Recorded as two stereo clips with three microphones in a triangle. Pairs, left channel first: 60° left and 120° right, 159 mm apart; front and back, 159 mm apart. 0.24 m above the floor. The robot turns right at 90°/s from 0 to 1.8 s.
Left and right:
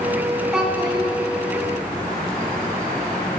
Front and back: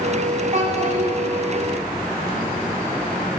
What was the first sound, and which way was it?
A child speaking, 150° left.